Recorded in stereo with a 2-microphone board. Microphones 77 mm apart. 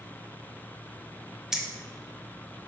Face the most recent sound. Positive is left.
turn(degrees=-10)  # may be behind; listen again after turning